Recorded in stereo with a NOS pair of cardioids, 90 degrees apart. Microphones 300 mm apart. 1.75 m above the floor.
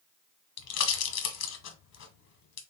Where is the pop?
65° left, 1.2 m.